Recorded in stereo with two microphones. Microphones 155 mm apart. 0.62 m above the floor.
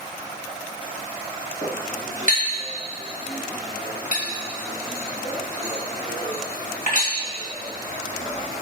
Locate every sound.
1.6 s a clink: 70° left (ahead or behind), 2.5 m